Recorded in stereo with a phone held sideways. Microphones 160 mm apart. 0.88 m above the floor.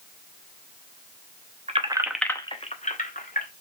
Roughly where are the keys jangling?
Right.